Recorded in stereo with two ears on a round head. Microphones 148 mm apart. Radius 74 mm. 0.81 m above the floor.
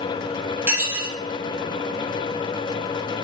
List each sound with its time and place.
0.7 s dishes clattering: 10° right (ahead or behind), 1.1 m